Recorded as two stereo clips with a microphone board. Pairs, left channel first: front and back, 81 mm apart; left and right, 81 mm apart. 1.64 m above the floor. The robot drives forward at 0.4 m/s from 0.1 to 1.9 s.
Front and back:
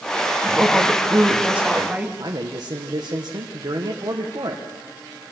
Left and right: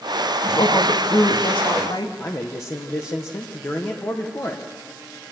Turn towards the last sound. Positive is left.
turn(degrees=140)